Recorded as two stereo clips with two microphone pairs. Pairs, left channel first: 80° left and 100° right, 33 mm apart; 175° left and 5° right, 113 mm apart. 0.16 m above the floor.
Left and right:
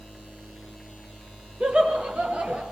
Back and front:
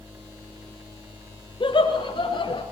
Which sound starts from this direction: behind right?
Laughter, at 1.6 s.